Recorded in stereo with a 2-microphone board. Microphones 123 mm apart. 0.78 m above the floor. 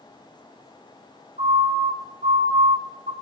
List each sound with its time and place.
1.4 s a siren: 75° right (ahead or behind), 4.5 m